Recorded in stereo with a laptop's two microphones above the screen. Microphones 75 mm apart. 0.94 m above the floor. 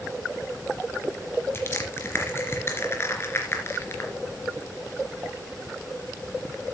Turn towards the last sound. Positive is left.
turn(degrees=35)  # may be behind; listen again after turning